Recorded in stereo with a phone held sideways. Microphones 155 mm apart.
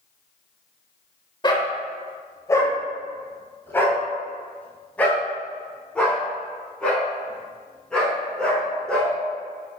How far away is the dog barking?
About 1.5 m.